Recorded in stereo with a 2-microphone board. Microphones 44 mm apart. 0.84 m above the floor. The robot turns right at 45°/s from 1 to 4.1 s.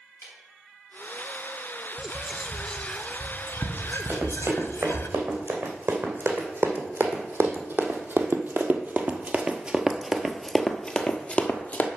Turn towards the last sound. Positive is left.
turn(degrees=35)  # may be behind; listen again after turning